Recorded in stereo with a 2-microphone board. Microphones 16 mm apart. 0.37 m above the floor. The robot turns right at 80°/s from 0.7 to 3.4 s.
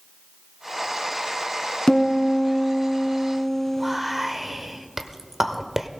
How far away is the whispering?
About 1.1 m.